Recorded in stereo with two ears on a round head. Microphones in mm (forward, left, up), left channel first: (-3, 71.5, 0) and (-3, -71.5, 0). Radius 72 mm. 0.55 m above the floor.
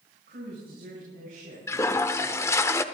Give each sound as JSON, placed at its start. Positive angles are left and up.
{"t": 0.3, "sound": "a woman speaking", "side_deg": -60, "distance_m": 5.0}
{"t": 1.7, "sound": "a toilet flushing", "side_deg": 15, "distance_m": 0.5}